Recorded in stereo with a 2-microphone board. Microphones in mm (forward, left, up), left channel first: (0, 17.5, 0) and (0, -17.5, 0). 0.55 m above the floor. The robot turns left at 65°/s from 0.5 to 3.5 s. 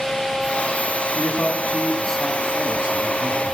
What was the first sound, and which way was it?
A man speaking, 75° left.